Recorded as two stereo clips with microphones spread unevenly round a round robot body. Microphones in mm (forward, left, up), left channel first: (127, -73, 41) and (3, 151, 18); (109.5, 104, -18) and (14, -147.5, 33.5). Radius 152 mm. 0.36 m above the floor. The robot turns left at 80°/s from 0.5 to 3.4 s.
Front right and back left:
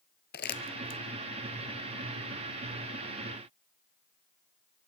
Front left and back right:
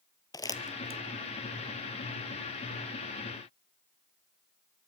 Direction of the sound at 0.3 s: 10° right.